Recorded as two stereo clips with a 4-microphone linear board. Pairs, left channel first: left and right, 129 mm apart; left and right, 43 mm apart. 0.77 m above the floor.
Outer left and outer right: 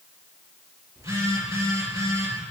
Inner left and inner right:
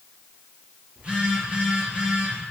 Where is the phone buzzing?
25° right (ahead or behind), 5 m.